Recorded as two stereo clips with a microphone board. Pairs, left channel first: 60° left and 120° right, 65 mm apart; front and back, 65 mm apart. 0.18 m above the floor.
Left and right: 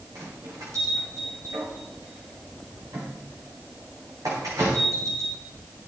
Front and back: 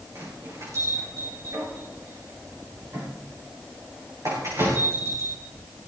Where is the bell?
145° right, 7.5 m.